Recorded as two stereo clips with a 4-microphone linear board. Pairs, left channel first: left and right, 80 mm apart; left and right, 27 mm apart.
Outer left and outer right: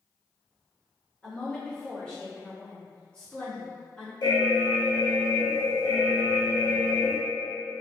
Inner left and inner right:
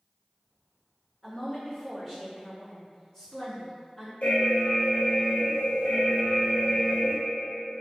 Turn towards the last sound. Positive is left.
turn(degrees=60)  # may be behind; listen again after turning